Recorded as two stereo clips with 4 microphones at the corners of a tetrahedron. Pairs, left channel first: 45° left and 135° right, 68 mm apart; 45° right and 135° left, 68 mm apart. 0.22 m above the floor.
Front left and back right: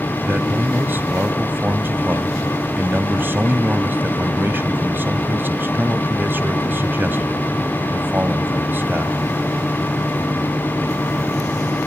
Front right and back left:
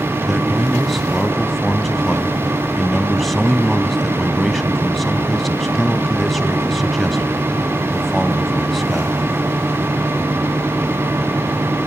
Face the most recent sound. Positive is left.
turn(degrees=-130)